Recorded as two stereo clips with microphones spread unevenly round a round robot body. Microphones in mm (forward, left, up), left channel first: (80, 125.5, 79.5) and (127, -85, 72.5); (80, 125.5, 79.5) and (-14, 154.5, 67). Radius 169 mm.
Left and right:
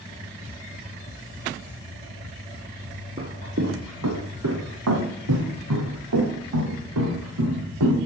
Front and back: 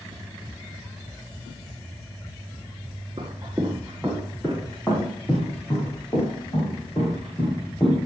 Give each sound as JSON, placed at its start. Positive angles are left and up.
{"t": 3.2, "sound": "footsteps", "azimuth_deg": -125, "distance_m": 1.1}